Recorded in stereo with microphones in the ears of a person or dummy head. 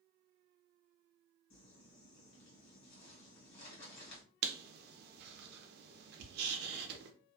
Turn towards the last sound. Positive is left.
turn(degrees=-60)  # may be behind; listen again after turning